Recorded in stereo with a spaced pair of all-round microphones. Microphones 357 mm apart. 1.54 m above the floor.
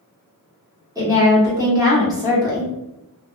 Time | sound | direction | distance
0.9 | a woman speaking | 10° right (ahead or behind) | 1.1 m